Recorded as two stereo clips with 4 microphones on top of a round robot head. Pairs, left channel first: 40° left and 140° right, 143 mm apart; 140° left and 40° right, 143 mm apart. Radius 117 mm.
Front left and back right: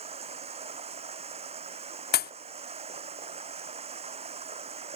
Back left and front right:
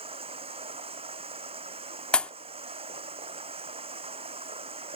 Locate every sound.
0.0 s running water: 90° right
2.1 s a pop: 55° left